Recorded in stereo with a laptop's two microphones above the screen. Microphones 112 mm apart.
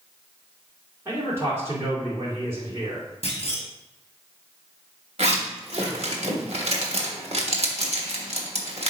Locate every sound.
1.1 s a man speaking: 25° right (ahead or behind), 3 m
3.2 s a clunk: 55° left (ahead or behind), 1.0 m
5.2 s a zipper: 65° right (ahead or behind), 1.3 m